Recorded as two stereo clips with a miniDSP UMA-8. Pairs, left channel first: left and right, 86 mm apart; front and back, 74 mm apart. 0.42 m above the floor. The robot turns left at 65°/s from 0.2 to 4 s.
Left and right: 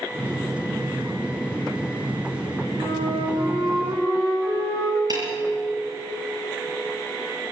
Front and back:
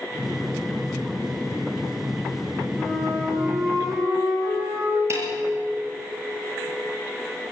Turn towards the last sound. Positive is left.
turn(degrees=-130)